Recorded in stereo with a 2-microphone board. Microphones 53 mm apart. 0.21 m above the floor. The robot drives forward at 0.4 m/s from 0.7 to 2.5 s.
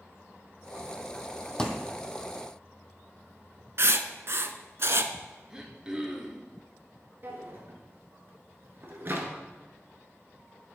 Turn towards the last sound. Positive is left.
turn(degrees=-45)  # may be behind; listen again after turning